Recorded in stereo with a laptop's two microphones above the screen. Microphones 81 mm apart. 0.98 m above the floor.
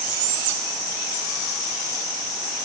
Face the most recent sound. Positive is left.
No sound to turn to.